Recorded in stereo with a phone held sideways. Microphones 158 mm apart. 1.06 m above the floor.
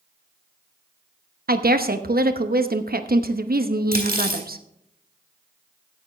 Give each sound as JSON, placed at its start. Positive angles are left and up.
{"t": 1.5, "sound": "a woman speaking", "side_deg": -75, "distance_m": 0.9}
{"t": 3.9, "sound": "cutlery clinking", "side_deg": -75, "distance_m": 3.5}